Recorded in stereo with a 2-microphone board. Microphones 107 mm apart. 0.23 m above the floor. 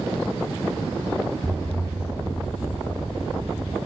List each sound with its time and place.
1.4 s an explosion: 5° left (ahead or behind), 1.0 m